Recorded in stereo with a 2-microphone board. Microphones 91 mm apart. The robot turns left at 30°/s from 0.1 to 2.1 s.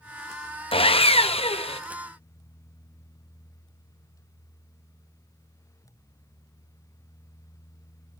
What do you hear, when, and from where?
0.7 s sawing: 110° left, 0.8 m; by 1.8 s 75° left, 0.8 m